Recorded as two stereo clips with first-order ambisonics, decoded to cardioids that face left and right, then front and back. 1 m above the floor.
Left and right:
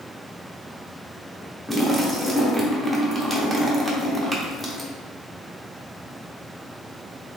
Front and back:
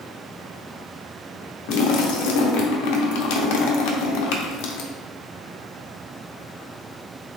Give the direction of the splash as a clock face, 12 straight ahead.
12 o'clock.